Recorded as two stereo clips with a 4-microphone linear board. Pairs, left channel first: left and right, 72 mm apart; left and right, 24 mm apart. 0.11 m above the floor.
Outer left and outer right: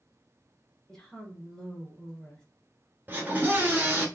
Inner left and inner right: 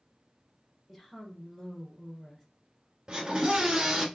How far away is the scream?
About 1.3 m.